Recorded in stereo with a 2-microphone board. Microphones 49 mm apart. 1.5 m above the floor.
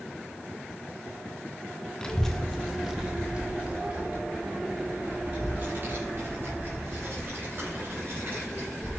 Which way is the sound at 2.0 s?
15° left (ahead or behind).